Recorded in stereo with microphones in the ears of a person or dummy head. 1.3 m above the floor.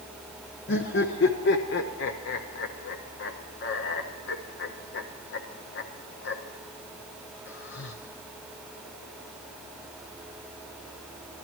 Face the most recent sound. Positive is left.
turn(degrees=60)  # may be behind; listen again after turning